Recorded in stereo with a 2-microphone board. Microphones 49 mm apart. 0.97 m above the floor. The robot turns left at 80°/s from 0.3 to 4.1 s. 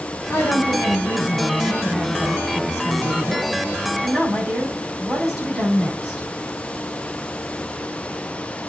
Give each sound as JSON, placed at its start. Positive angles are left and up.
{"t": 0.3, "sound": "a woman speaking", "azimuth_deg": 130, "distance_m": 6.0}